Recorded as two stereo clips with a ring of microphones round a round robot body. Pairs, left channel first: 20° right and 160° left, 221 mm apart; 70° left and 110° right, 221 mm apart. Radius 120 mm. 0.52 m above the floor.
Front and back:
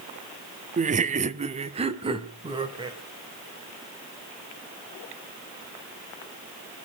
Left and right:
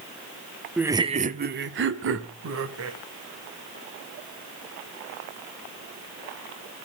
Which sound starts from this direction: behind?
Laughter, at 0.8 s.